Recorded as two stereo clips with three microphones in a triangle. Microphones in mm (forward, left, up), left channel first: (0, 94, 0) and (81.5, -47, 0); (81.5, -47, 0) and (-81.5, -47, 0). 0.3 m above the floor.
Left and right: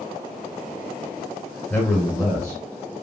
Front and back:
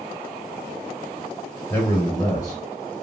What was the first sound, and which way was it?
A man speaking, 60° left.